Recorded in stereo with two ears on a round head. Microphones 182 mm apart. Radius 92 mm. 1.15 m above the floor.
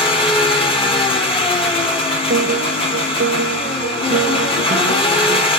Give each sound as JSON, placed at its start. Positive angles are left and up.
{"t": 0.0, "sound": "an engine running", "side_deg": 25, "distance_m": 1.8}
{"t": 2.3, "sound": "a piano", "side_deg": -40, "distance_m": 0.6}